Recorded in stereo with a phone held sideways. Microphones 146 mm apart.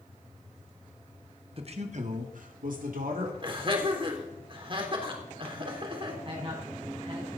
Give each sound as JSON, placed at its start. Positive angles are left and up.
{"t": 1.6, "sound": "a man speaking", "side_deg": -45, "distance_m": 1.7}
{"t": 3.4, "sound": "laughter", "side_deg": -35, "distance_m": 3.5}
{"t": 6.2, "sound": "a man speaking", "side_deg": -40, "distance_m": 6.0}